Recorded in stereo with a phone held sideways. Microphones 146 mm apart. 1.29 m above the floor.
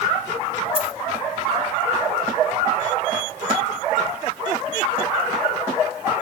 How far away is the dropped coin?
About 1.7 m.